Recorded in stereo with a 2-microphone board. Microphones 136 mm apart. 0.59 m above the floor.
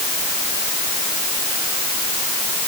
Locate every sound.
Only background noise.